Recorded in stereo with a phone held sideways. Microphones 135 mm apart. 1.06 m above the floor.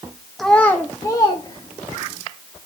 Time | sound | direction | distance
0.4 | a child speaking | centre (ahead or behind) | 0.8 m